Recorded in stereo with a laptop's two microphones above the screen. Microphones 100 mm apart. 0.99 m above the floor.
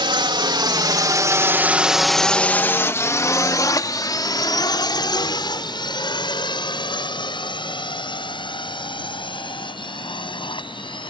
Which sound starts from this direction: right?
A drone, at 0.0 s.